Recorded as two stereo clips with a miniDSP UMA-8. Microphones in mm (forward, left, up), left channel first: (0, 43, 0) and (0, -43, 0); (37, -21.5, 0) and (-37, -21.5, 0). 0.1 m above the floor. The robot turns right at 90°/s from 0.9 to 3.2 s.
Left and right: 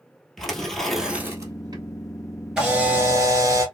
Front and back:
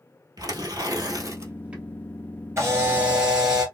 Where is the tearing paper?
175° left, 1.4 m; by 1.8 s 100° right, 1.4 m.